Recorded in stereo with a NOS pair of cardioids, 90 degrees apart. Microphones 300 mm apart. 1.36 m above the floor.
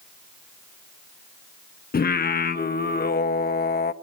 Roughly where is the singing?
Ahead left.